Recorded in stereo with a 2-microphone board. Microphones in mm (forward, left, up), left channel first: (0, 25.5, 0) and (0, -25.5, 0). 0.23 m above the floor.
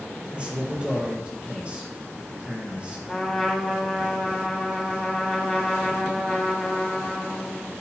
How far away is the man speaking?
About 3 m.